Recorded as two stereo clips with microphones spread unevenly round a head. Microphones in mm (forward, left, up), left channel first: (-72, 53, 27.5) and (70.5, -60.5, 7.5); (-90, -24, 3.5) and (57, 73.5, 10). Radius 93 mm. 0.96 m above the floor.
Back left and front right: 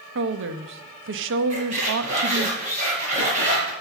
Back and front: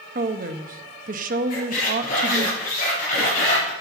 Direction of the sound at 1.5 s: 95° right.